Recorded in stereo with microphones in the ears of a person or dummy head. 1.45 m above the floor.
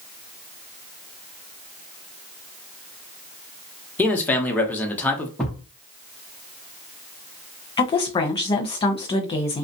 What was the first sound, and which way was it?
A man speaking, 5° left (ahead or behind).